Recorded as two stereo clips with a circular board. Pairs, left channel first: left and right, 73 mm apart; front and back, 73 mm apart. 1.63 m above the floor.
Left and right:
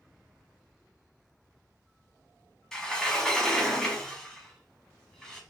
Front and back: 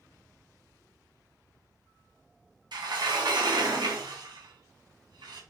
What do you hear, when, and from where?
2.7 s a sliding door: 175° left, 1.3 m